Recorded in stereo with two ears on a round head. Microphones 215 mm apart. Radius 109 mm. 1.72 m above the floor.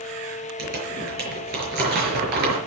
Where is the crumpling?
40° right (ahead or behind), 5.5 m.